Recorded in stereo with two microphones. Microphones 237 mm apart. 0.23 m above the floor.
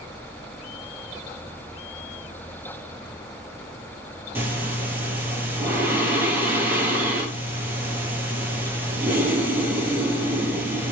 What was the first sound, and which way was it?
Breathing, 10° right (ahead or behind).